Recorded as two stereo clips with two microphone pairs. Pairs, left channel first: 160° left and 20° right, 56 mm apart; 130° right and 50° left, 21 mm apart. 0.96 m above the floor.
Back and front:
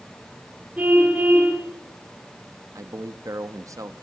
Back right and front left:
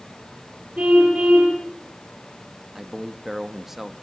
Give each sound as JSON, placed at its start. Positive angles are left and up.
{"t": 0.8, "sound": "a car horn", "azimuth_deg": 45, "distance_m": 8.0}
{"t": 2.8, "sound": "a man speaking", "azimuth_deg": -25, "distance_m": 1.2}